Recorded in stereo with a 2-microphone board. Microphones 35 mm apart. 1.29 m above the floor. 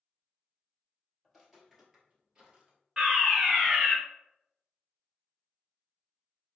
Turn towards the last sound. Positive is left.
turn(degrees=-10)  # may be behind; listen again after turning